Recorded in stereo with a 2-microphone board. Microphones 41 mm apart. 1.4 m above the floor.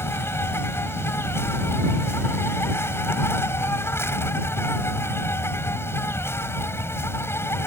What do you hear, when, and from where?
0.0 s an insect: 80° left